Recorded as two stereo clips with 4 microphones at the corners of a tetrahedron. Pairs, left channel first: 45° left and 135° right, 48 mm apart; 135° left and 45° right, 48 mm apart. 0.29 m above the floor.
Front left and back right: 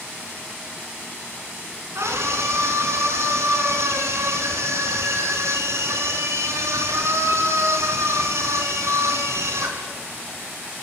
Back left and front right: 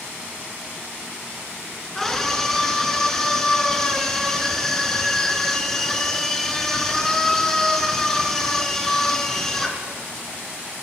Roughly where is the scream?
Behind right.